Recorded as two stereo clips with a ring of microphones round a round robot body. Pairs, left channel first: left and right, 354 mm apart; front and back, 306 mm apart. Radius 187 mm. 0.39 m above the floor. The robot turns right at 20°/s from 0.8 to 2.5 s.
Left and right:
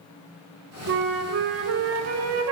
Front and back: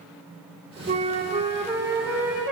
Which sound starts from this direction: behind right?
A flute, at 0.9 s.